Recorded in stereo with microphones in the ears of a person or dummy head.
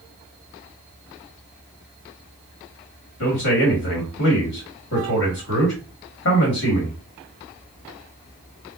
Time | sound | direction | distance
3.2 | a man speaking | 65° left (ahead or behind) | 1.8 m